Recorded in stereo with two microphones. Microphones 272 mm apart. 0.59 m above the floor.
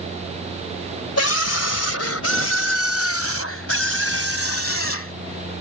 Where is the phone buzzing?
I don't hear a phone buzzing.